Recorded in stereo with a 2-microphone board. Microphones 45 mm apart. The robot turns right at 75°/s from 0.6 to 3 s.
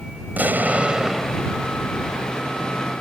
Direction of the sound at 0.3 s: 50° right.